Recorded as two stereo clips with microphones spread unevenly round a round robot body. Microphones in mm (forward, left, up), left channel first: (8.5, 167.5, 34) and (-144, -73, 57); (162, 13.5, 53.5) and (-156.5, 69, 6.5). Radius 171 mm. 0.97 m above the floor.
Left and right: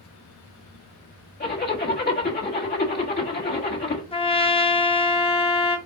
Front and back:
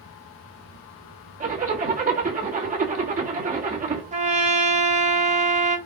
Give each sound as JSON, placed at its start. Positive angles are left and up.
{"t": 1.4, "sound": "a zipper", "azimuth_deg": 110, "distance_m": 1.6}
{"t": 4.1, "sound": "a trumpet", "azimuth_deg": 120, "distance_m": 0.9}